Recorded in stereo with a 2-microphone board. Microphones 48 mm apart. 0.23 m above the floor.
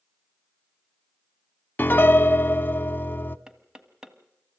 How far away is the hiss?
I don't hear a hiss.